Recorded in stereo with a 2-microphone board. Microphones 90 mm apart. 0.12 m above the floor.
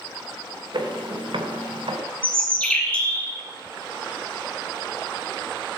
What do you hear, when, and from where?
0.7 s footsteps: 50° right (ahead or behind), 2.5 m; by 2.0 s 70° right (ahead or behind), 2.5 m
2.2 s a bird: 15° left (ahead or behind), 2.5 m